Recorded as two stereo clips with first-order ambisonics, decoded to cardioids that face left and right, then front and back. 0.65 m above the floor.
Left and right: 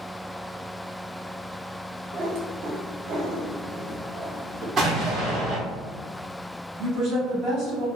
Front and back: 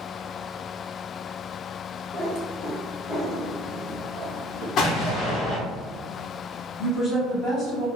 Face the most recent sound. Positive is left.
turn(degrees=-65)